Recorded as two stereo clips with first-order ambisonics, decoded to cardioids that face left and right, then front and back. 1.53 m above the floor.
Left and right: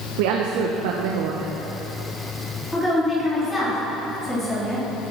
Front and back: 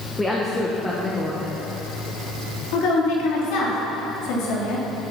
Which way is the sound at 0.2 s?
80° right.